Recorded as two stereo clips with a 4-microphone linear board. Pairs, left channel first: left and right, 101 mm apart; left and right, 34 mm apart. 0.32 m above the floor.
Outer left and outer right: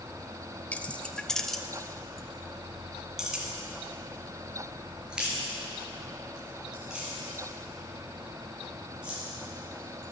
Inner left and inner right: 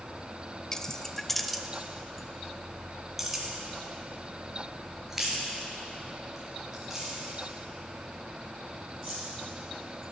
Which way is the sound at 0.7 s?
15° left (ahead or behind).